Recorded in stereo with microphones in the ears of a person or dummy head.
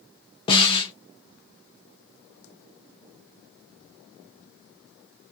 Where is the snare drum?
25° left (ahead or behind), 0.6 m.